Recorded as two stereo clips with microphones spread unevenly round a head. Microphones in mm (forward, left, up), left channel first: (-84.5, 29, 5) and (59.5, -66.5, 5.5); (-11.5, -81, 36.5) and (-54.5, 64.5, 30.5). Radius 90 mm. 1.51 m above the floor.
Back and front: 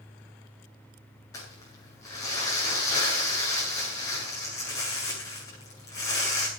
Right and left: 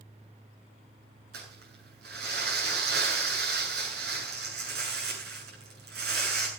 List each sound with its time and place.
1.3 s crumpling: 75° left, 8.5 m